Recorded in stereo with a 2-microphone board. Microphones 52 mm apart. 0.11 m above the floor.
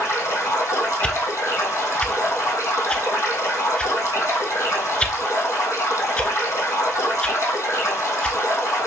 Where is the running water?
70° left (ahead or behind), 2.5 m.